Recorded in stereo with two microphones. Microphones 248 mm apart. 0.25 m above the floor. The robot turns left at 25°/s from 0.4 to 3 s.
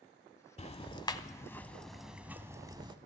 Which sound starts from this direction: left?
Ticking, at 0.6 s.